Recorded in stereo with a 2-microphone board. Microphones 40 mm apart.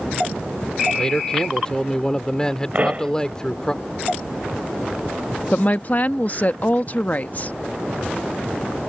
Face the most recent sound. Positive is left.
turn(degrees=40)  # may be behind; listen again after turning